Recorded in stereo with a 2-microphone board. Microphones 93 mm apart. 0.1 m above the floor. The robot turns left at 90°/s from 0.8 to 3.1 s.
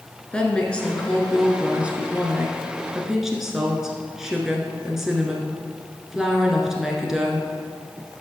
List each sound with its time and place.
0.3 s a woman speaking: 10° left (ahead or behind), 1.2 m; by 7.5 s 5° right (ahead or behind), 1.2 m